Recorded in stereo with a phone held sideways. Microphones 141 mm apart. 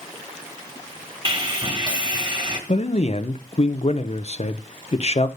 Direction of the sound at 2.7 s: 50° left (ahead or behind).